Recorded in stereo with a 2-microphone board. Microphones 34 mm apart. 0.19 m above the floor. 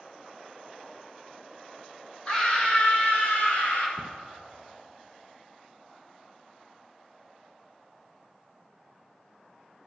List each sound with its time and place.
2.3 s a scream: 30° left (ahead or behind), 2 m; by 3.9 s 60° left (ahead or behind), 2.5 m
4.0 s a cupboard door: 40° left (ahead or behind), 0.6 m